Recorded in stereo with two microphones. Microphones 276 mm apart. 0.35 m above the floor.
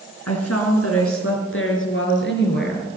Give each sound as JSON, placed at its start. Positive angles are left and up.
{"t": 0.3, "sound": "a woman speaking", "side_deg": 65, "distance_m": 4.0}